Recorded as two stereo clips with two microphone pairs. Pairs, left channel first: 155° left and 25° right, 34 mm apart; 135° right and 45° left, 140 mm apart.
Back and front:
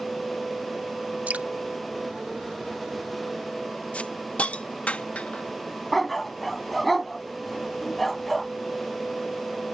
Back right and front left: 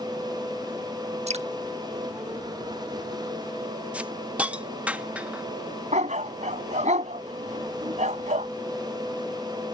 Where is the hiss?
125° left.